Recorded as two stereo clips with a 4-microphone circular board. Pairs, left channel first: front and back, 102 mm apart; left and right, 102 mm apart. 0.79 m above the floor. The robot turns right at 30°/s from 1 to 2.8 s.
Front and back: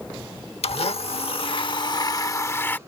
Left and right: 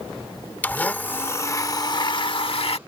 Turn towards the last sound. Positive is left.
turn(degrees=70)